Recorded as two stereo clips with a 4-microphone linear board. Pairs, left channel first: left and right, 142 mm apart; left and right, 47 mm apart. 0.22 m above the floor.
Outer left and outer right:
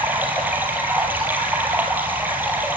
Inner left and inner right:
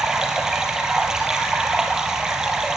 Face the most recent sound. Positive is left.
turn(degrees=-15)  # may be behind; listen again after turning